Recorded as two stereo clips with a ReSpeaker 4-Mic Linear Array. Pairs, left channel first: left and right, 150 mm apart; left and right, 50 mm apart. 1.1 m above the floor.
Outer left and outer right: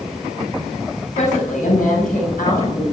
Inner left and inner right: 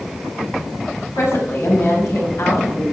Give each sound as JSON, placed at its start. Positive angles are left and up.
{"t": 1.1, "sound": "a woman speaking", "side_deg": 55, "distance_m": 5.5}